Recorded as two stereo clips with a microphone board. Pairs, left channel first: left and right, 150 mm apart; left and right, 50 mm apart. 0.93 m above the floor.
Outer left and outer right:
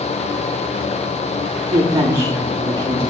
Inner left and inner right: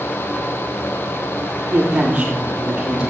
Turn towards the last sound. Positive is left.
turn(degrees=-25)  # may be behind; listen again after turning